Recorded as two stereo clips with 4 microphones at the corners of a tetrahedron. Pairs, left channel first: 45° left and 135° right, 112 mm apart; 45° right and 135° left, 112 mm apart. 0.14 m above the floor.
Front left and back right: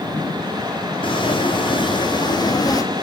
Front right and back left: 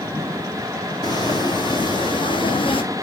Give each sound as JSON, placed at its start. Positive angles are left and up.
{"t": 1.0, "sound": "footsteps", "azimuth_deg": 5, "distance_m": 2.5}